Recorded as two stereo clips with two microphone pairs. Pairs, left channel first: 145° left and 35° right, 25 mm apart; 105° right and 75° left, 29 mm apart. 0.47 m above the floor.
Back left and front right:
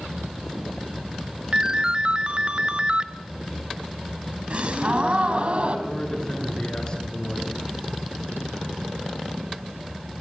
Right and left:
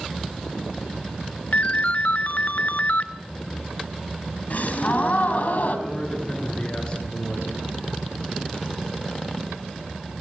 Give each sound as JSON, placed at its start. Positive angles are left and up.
{"t": 1.5, "sound": "a ringtone", "azimuth_deg": -85, "distance_m": 0.9}
{"t": 4.5, "sound": "a gasp", "azimuth_deg": -75, "distance_m": 3.0}
{"t": 5.9, "sound": "a man speaking", "azimuth_deg": -160, "distance_m": 7.0}